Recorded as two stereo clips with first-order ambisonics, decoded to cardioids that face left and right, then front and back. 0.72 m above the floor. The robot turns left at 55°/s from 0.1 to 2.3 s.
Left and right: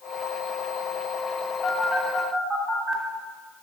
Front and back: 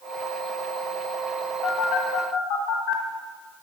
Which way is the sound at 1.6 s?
25° left.